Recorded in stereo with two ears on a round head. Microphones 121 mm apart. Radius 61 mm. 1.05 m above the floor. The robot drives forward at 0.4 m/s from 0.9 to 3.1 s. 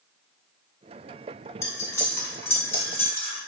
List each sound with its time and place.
1.6 s cutlery clinking: 20° left (ahead or behind), 2 m; by 3.4 s 15° left (ahead or behind), 2.5 m